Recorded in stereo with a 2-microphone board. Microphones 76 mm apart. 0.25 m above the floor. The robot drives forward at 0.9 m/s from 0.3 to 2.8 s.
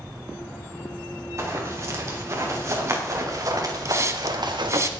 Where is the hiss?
40° right (ahead or behind), 1.0 m.